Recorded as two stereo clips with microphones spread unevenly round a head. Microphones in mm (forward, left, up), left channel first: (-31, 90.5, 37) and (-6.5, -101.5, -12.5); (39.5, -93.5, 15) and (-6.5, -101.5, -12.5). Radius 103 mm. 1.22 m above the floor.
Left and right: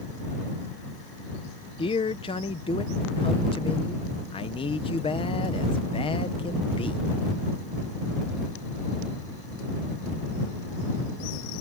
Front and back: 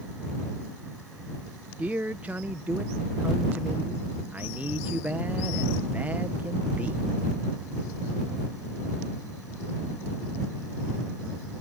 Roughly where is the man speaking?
Behind.